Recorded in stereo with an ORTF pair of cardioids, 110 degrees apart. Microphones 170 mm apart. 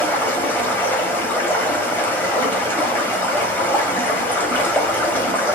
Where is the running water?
10° left, 1.5 m.